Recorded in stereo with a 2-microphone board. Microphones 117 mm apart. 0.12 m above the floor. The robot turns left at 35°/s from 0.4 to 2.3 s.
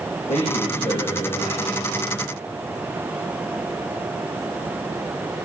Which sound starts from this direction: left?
A man speaking, at 0.3 s.